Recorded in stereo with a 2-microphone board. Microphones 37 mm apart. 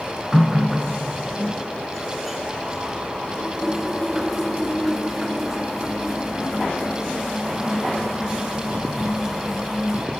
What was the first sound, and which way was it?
A running tap, 5° right (ahead or behind).